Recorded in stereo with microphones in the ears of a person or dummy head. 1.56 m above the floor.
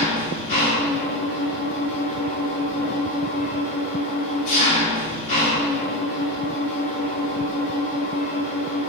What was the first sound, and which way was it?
An engine running, 45° left (ahead or behind).